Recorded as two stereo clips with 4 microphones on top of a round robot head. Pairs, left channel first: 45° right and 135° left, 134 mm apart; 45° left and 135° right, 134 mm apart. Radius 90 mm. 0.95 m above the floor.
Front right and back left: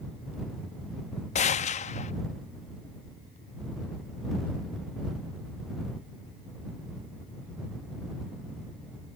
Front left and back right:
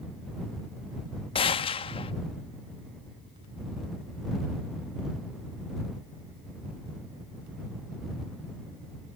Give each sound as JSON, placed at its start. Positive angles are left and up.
{"t": 1.4, "sound": "a gunshot", "azimuth_deg": -5}